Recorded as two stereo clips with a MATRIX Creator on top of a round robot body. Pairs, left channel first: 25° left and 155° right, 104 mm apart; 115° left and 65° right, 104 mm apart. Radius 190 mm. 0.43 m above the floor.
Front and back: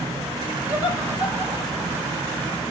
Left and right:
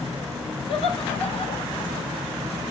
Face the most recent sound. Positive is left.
turn(degrees=130)